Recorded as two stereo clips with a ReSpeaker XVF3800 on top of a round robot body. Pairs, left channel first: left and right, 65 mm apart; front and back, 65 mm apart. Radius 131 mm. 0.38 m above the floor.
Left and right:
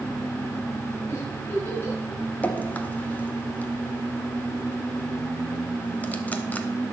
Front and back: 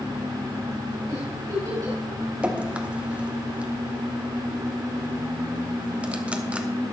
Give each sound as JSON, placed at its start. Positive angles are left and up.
{"t": 1.1, "sound": "a giggle", "azimuth_deg": 145, "distance_m": 4.5}
{"t": 2.4, "sound": "dripping", "azimuth_deg": 125, "distance_m": 1.3}